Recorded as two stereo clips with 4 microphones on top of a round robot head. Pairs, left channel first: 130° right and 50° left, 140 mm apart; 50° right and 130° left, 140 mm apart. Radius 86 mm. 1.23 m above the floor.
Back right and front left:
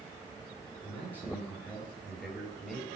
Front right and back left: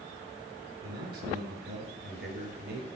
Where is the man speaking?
150° left, 7 m; by 2.9 s 140° left, 7.5 m.